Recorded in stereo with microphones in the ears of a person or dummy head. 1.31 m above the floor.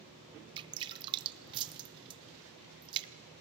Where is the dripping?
25° right (ahead or behind), 0.6 m.